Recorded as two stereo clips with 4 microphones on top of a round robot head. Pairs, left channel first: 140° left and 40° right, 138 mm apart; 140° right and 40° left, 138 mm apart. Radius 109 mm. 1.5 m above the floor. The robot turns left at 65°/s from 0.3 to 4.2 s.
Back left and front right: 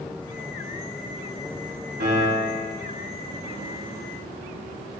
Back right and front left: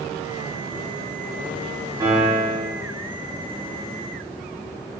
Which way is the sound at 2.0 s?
25° right.